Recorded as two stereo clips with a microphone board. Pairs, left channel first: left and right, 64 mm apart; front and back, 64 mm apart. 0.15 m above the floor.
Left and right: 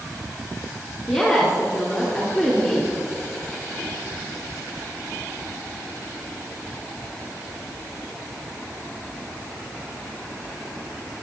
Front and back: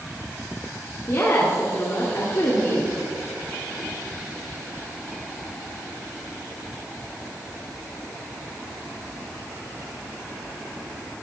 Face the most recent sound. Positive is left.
turn(degrees=0)